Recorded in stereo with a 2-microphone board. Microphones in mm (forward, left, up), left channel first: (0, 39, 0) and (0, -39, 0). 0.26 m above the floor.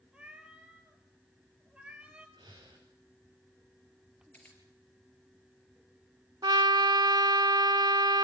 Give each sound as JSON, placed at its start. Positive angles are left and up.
{"t": 0.1, "sound": "a cat meowing", "side_deg": -15, "distance_m": 2.5}
{"t": 2.4, "sound": "breathing", "side_deg": -85, "distance_m": 6.5}
{"t": 4.3, "sound": "a camera shutter", "side_deg": 20, "distance_m": 5.0}
{"t": 6.4, "sound": "a trumpet", "side_deg": -70, "distance_m": 0.6}